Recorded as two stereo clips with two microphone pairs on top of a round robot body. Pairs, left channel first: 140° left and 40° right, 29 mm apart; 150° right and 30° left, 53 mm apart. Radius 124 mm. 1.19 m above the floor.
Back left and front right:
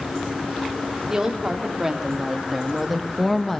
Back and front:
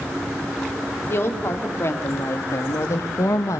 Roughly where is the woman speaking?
Right.